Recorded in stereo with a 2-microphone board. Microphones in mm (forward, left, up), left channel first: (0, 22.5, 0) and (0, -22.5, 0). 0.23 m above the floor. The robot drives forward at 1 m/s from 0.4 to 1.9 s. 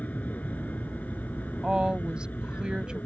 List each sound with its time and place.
0.0 s an aircraft: 35° left (ahead or behind); by 3.1 s 40° left (ahead or behind)
1.6 s a woman speaking: 20° right (ahead or behind)